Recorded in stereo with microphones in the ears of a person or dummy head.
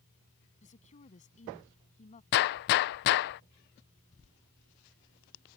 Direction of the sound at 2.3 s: 50° left (ahead or behind).